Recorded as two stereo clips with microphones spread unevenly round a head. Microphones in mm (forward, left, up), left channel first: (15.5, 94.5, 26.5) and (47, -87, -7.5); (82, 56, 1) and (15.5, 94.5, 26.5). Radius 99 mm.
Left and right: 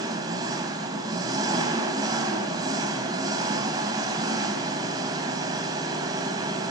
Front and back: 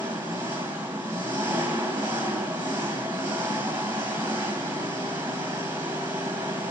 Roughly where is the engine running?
Behind right.